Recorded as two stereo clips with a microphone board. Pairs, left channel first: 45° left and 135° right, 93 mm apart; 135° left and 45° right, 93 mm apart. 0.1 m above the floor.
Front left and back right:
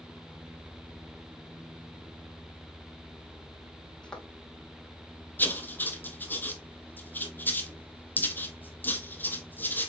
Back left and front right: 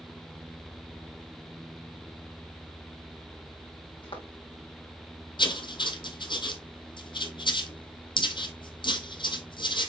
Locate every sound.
4.0 s footsteps: 125° left, 3 m
5.4 s writing: 115° left, 0.9 m